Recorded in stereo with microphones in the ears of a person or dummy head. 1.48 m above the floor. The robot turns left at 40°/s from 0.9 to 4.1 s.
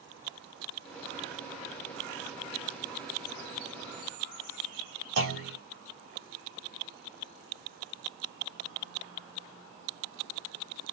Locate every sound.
5.2 s a clunk: 70° right (ahead or behind), 2.5 m